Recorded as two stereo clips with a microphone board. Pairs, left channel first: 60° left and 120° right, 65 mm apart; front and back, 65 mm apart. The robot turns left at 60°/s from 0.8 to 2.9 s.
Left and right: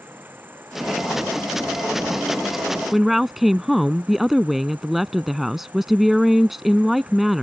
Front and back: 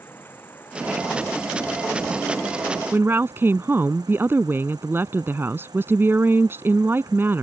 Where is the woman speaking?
155° left.